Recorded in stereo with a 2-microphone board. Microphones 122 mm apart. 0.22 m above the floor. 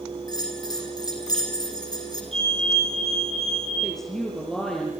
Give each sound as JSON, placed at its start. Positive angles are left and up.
{"t": 0.3, "sound": "a bell", "side_deg": 35, "distance_m": 4.0}
{"t": 2.3, "sound": "a fire alarm", "side_deg": 70, "distance_m": 6.0}
{"t": 3.8, "sound": "a woman speaking", "side_deg": 5, "distance_m": 6.0}